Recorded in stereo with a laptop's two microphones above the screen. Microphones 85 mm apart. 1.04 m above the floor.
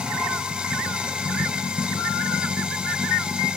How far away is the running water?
About 2.5 m.